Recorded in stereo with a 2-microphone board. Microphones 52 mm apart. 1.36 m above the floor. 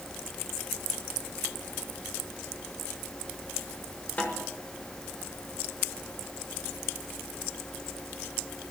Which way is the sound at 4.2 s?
35° left (ahead or behind).